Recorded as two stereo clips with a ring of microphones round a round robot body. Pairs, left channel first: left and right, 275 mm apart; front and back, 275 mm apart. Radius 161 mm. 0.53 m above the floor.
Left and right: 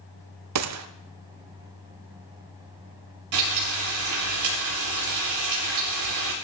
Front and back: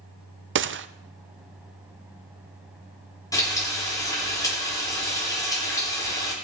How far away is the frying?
About 7.5 m.